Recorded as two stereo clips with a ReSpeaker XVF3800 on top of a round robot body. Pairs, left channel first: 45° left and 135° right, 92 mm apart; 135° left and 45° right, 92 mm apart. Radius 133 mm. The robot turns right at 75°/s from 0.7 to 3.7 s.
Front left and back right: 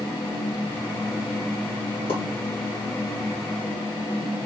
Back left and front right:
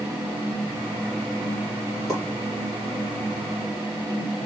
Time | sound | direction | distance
2.1 | a pop | 45° left | 2.5 m